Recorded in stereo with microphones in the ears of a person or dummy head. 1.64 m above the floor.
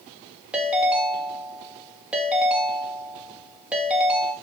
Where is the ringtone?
10° right (ahead or behind), 2 m.